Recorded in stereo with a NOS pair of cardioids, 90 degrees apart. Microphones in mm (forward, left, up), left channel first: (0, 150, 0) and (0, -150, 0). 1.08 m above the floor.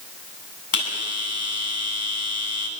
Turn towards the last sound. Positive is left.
turn(degrees=45)